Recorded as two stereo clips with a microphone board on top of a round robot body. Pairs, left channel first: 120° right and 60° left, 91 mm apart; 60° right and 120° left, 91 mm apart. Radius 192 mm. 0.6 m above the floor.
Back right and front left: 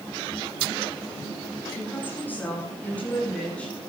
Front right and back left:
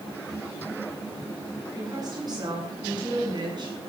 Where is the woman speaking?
170° left, 8 m; by 3.8 s 160° left, 8.5 m.